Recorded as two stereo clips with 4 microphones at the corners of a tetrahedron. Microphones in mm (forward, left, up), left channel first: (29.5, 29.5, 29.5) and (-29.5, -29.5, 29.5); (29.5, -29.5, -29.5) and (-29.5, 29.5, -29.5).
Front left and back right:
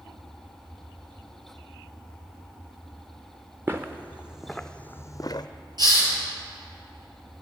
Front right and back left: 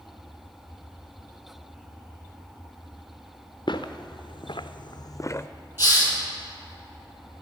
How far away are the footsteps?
About 1.0 m.